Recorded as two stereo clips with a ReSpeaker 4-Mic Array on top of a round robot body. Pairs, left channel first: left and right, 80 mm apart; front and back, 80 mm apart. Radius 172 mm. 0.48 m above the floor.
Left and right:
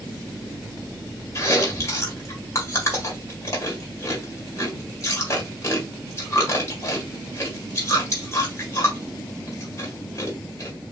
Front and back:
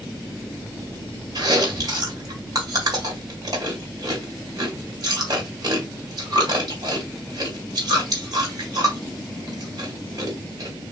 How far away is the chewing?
About 3 m.